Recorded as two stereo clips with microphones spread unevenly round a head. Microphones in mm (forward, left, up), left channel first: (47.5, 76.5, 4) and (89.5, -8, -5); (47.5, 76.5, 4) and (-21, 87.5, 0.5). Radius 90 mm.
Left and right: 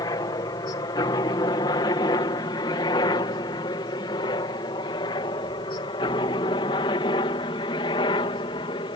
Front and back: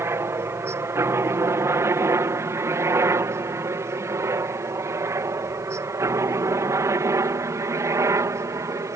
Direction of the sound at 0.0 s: 150° left.